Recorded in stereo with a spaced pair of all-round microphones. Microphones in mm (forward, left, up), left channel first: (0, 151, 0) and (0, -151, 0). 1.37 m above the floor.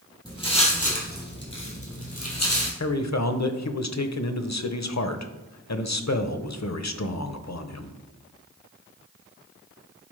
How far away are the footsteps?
About 3 m.